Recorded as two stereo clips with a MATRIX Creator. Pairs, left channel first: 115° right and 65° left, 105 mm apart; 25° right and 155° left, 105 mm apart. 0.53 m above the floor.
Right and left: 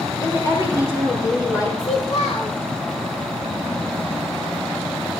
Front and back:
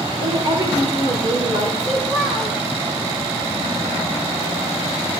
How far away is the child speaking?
About 2 m.